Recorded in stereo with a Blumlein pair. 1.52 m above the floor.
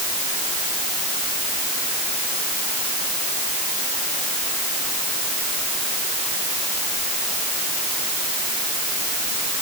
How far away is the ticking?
No ticking in this recording.